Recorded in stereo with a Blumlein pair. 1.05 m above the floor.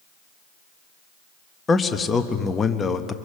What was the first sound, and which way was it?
A man speaking, 15° left.